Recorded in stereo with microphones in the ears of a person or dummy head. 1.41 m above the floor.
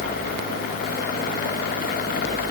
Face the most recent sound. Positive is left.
No sound to turn to.